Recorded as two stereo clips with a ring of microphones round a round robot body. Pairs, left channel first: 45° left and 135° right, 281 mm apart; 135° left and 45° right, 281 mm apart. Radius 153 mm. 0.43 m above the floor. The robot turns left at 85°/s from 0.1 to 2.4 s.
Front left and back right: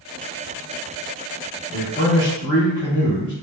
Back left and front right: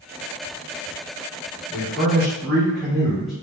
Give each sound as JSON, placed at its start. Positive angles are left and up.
{"t": 1.7, "sound": "a man speaking", "azimuth_deg": 105, "distance_m": 1.2}